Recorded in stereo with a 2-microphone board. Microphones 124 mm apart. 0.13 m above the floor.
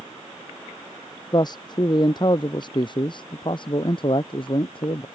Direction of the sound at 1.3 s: 35° left (ahead or behind).